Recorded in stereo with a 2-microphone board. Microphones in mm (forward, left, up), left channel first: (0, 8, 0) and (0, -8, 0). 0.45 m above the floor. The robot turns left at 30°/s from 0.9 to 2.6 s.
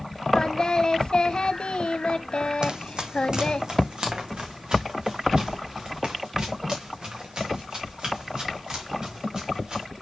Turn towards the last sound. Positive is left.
turn(degrees=-45)  # may be behind; listen again after turning